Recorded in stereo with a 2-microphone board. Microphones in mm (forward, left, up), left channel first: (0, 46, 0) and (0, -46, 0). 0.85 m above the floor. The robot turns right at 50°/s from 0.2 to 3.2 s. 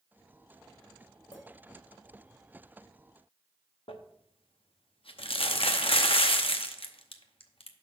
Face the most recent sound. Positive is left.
turn(degrees=75)  # may be behind; listen again after turning